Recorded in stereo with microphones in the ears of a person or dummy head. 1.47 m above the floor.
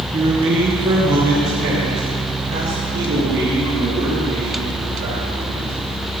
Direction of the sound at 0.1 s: 25° right (ahead or behind).